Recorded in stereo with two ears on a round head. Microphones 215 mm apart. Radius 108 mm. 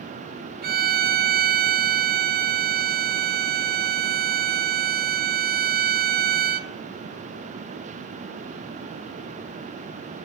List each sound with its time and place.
0.6 s a violin: 40° right (ahead or behind), 0.7 m